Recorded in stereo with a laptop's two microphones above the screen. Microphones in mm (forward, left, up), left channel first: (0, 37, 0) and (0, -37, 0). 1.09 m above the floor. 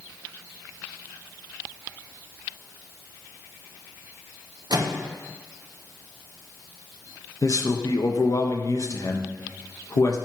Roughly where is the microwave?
Right.